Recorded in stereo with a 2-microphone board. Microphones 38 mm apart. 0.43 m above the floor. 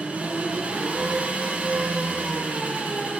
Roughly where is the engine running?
Right.